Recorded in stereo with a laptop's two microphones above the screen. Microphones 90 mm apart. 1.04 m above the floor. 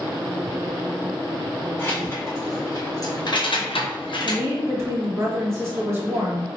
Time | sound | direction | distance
1.8 | keys jangling | 25° left (ahead or behind) | 1.7 m
4.2 | a woman speaking | 30° right (ahead or behind) | 1.2 m